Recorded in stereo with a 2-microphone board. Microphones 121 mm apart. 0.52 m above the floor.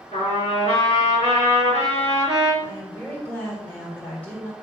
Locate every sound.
0.1 s a trumpet: 65° left (ahead or behind), 4.5 m
2.6 s a woman speaking: 20° left (ahead or behind), 2.5 m